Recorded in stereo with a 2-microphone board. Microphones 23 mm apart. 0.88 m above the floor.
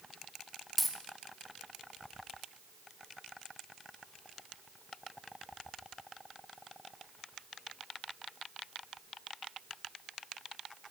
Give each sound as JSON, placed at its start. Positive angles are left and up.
{"t": 0.8, "sound": "a dropped coin", "side_deg": 0, "distance_m": 0.8}